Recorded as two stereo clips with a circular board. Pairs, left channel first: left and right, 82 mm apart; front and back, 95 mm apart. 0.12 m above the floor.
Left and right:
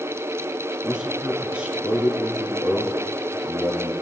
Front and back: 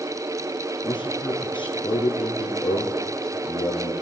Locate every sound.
0.8 s a man speaking: 15° right, 2 m